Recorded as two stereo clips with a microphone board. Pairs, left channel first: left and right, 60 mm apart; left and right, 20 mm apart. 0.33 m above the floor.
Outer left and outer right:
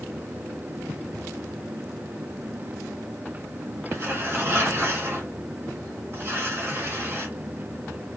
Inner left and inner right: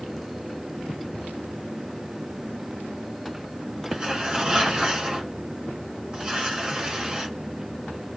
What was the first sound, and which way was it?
Tearing paper, 40° right (ahead or behind).